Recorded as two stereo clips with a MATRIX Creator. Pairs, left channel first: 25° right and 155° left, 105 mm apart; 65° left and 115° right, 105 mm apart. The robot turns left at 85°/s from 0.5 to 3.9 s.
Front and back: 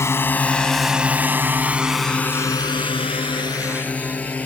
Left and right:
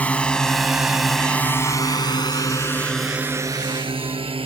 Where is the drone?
5° left; by 4.5 s 95° right.